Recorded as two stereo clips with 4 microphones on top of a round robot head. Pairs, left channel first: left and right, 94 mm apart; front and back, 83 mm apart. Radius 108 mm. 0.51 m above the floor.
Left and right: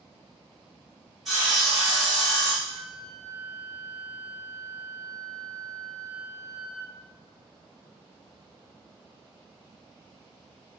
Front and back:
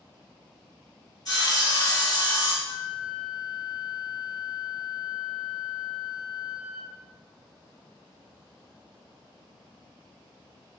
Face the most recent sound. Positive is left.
turn(degrees=5)